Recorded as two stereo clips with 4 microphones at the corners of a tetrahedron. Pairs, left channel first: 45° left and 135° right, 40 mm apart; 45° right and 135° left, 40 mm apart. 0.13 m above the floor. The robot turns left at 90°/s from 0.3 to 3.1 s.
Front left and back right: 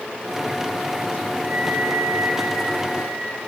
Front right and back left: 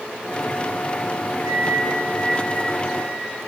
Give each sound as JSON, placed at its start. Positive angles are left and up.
{"t": 1.4, "sound": "a flute", "azimuth_deg": 155, "distance_m": 9.0}